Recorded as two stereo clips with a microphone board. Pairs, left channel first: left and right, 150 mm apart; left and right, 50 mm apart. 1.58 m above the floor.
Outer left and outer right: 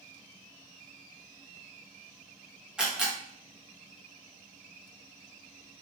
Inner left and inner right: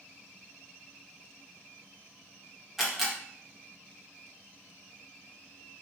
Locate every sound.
2.8 s a camera shutter: 5° right (ahead or behind), 0.8 m